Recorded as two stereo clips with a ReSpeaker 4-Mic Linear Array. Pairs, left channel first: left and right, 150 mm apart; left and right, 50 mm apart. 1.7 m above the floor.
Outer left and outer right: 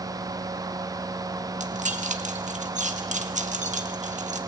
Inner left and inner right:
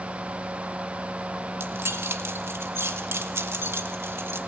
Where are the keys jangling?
55° right (ahead or behind), 1.7 m.